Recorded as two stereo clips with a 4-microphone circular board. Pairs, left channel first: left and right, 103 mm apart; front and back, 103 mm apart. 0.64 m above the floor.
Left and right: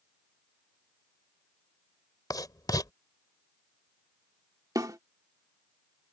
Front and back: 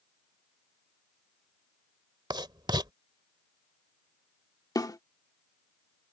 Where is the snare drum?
45° right.